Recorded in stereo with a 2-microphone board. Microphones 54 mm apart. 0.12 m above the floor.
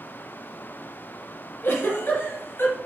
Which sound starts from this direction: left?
A giggle, at 1.6 s.